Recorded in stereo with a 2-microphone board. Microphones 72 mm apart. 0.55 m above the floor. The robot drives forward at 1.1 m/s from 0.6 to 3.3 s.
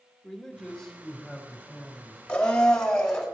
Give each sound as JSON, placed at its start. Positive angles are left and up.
{"t": 0.2, "sound": "a man speaking", "side_deg": 10, "distance_m": 1.7}
{"t": 2.3, "sound": "a blender", "side_deg": 15, "distance_m": 1.5}